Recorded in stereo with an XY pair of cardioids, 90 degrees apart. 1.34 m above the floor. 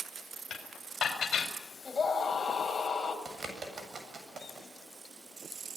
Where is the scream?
30° left, 8 m.